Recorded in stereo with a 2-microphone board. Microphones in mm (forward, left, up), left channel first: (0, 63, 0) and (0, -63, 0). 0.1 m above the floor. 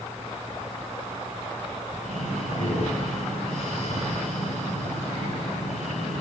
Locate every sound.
2.0 s breathing: 75° left (ahead or behind), 6.5 m